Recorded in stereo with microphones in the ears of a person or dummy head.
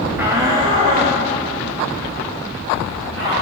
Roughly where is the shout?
Centre.